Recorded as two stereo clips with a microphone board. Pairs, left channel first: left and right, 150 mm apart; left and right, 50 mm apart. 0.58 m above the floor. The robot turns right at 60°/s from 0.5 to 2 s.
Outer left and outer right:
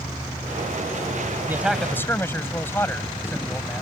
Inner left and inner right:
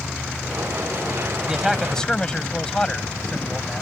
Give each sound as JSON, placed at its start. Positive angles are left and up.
{"t": 1.5, "sound": "a man speaking", "azimuth_deg": -15}